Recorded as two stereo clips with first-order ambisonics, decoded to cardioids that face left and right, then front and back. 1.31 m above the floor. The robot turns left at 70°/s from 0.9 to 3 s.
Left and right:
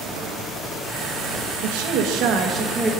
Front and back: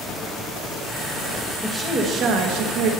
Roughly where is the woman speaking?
Right.